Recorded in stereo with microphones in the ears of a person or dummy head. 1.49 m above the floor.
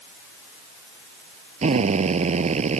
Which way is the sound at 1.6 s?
35° right (ahead or behind).